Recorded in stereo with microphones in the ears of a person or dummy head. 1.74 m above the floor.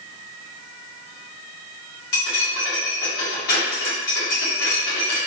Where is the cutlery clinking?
55° left (ahead or behind), 2.0 m.